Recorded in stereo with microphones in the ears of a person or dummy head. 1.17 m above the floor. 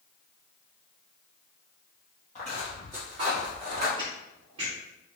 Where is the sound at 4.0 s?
25° right (ahead or behind), 1.2 m.